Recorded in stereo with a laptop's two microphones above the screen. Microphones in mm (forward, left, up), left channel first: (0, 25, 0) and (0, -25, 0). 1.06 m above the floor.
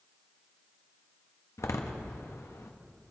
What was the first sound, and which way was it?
A door slam, 80° left.